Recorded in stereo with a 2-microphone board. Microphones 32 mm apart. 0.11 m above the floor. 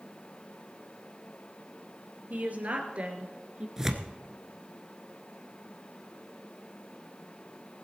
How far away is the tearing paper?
About 1.1 m.